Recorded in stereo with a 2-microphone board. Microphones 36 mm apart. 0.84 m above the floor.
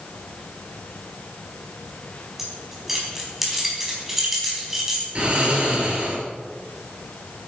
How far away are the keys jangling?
About 4 m.